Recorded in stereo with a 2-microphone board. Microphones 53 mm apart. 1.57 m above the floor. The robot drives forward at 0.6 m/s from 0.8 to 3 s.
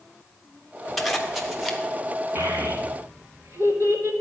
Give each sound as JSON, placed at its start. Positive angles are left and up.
{"t": 1.0, "sound": "a zipper", "side_deg": 0, "distance_m": 1.1}
{"t": 2.4, "sound": "a child speaking", "side_deg": -55, "distance_m": 2.0}